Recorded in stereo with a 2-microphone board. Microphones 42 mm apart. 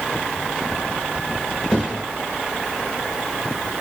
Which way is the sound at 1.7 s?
25° left (ahead or behind).